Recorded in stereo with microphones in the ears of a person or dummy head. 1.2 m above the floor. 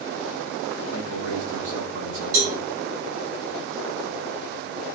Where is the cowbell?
85° right, 6.5 m.